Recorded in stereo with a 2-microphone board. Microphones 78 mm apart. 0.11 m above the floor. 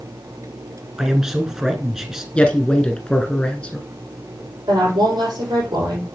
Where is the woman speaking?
70° right (ahead or behind), 5 m.